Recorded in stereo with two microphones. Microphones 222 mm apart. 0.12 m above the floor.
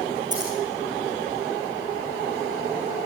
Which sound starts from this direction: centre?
Scissors, at 0.3 s.